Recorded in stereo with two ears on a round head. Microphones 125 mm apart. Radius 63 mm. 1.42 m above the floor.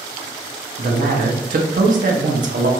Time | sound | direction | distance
0.8 | a man speaking | 55° right (ahead or behind) | 0.6 m